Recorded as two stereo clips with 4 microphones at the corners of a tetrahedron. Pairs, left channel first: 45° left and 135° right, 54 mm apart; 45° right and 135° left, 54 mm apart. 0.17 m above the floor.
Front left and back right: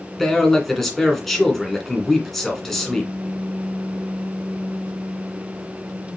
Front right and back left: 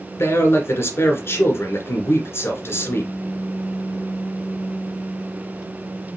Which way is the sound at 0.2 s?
40° right.